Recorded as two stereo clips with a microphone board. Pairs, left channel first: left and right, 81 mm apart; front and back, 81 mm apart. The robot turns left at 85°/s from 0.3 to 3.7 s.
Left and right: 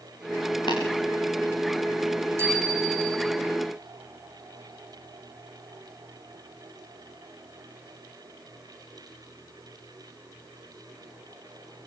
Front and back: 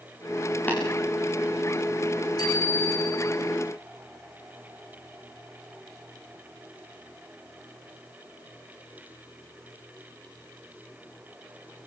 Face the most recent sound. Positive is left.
turn(degrees=-145)